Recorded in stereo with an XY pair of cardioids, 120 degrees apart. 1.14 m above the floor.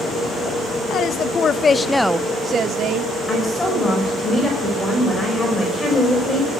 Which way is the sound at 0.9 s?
55° left.